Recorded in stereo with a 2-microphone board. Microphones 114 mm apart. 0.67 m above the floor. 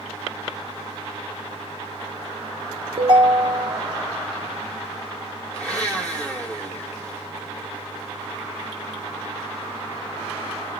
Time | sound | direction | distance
3.0 | a ringtone | 50° right (ahead or behind) | 0.8 m
5.5 | a blender | 10° left (ahead or behind) | 1.4 m